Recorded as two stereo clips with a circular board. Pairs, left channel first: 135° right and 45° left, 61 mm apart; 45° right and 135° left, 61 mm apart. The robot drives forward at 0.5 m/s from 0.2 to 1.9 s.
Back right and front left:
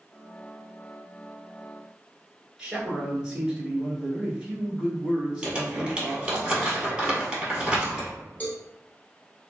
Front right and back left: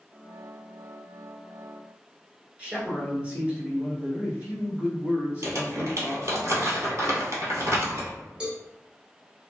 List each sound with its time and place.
2.6 s a man speaking: 115° left, 1.2 m
5.4 s crumpling: 120° left, 1.4 m
8.4 s a cowbell: 170° right, 0.9 m